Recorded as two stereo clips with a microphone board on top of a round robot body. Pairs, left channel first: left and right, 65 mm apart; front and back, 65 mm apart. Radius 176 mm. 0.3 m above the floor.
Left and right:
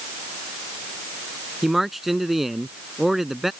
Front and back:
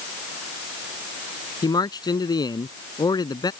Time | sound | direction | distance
1.6 | a man speaking | 5° right | ?